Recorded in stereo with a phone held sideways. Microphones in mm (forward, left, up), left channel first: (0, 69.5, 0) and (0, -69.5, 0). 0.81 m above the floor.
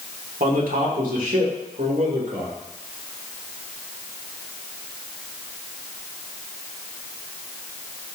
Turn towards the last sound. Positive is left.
turn(degrees=-70)  # may be behind; listen again after turning